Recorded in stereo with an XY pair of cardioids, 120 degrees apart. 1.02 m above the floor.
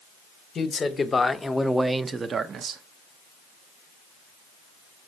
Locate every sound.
0.6 s a man speaking: 35° left, 1.0 m; by 2.8 s 65° right, 0.7 m